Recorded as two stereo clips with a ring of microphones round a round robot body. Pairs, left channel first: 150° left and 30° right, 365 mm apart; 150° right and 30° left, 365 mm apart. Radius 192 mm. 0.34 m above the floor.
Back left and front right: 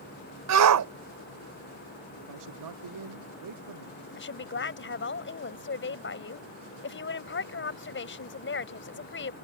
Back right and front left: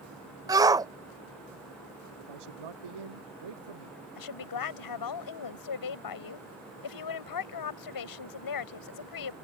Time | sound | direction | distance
0.5 | a shout | 45° right | ?
2.2 | a man speaking | 10° left | ?
4.2 | a woman speaking | 155° right | ?